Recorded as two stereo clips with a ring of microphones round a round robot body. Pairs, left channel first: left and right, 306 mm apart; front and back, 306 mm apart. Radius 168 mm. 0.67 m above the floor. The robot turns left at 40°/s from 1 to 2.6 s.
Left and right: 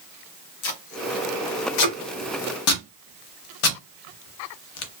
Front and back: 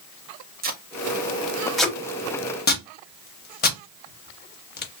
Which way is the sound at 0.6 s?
120° left.